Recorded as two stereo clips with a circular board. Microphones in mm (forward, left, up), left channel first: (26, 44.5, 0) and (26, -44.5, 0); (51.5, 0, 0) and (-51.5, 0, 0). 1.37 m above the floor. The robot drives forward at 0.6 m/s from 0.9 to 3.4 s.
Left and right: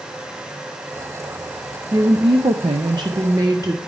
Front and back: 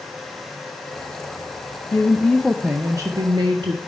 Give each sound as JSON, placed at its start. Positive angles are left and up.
{"t": 1.9, "sound": "a woman speaking", "azimuth_deg": -55, "distance_m": 0.6}